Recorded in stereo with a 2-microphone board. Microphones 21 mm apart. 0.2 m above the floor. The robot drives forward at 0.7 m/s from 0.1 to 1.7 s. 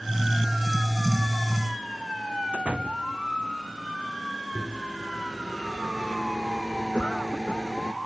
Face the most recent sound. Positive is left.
turn(degrees=55)  # may be behind; listen again after turning